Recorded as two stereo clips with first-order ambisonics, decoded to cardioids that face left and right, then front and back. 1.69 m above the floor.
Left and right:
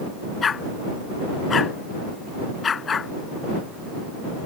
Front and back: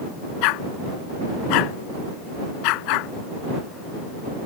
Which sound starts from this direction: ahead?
A dog barking, at 0.4 s.